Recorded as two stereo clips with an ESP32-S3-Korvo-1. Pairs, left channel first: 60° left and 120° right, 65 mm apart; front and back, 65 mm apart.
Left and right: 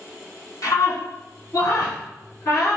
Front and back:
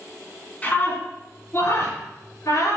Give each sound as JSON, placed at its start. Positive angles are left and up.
{"t": 0.6, "sound": "a scream", "azimuth_deg": 60, "distance_m": 2.0}